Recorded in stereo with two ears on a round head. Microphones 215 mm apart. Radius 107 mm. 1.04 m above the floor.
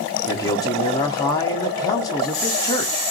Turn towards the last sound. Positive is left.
turn(degrees=15)  # may be behind; listen again after turning